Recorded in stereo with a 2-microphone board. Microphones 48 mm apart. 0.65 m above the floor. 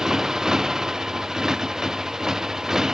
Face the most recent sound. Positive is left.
turn(degrees=-10)  # may be behind; listen again after turning